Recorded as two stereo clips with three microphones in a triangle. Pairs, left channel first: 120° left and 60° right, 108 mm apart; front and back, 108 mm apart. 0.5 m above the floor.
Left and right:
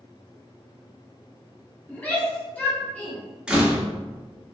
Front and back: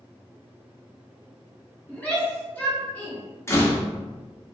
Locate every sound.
1.9 s a shout: 60° left, 0.9 m
3.5 s a door slam: 10° left, 0.5 m